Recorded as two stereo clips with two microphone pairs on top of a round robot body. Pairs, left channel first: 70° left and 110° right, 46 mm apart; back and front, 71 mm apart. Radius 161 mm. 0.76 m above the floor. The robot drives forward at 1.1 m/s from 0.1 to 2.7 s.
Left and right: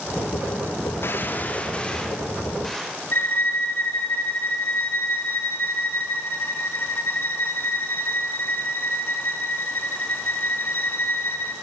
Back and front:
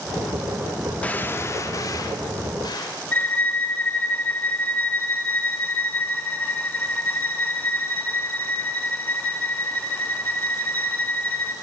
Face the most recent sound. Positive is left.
turn(degrees=115)